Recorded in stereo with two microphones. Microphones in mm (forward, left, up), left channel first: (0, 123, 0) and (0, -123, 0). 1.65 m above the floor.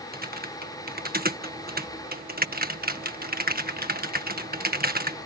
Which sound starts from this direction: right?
Typing on a keyboard, at 0.1 s.